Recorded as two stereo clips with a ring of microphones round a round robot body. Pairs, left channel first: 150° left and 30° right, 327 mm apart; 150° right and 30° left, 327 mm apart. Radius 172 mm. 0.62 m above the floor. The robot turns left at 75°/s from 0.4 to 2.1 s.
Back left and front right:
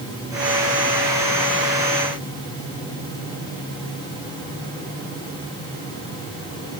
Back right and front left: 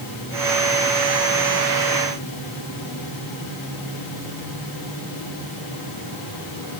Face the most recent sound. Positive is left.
No sound to turn to.